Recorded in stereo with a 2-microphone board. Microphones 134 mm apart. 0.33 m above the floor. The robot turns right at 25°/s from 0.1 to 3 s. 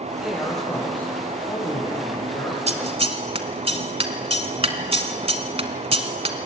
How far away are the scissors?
About 1.4 m.